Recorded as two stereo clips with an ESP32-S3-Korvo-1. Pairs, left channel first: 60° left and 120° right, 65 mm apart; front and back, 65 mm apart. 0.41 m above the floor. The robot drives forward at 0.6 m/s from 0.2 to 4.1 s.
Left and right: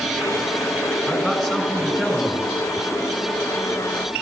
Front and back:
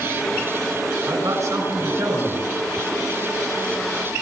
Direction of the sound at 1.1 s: 150° left.